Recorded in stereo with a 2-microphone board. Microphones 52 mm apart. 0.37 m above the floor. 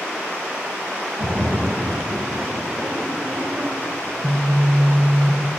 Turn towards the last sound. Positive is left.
turn(degrees=15)  # may be behind; listen again after turning